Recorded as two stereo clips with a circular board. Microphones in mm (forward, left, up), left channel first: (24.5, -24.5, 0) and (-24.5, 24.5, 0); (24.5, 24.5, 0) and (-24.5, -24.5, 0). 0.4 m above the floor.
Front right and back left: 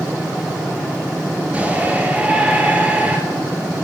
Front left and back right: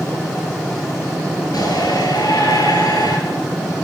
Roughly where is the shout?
Ahead left.